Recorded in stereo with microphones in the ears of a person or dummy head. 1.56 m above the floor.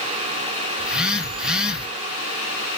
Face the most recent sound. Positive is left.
turn(degrees=-5)  # may be behind; listen again after turning